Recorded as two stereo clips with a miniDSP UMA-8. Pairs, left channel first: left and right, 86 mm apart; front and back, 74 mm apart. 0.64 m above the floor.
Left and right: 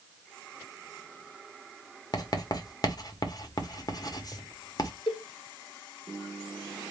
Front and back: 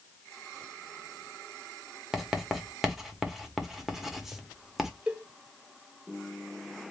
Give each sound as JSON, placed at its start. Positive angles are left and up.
{"t": 2.1, "sound": "writing", "azimuth_deg": 95, "distance_m": 0.8}
{"t": 5.1, "sound": "a cowbell", "azimuth_deg": 105, "distance_m": 0.7}